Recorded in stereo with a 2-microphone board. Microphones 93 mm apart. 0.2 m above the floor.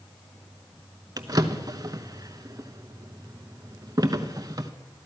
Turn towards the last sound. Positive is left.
turn(degrees=-40)  # may be behind; listen again after turning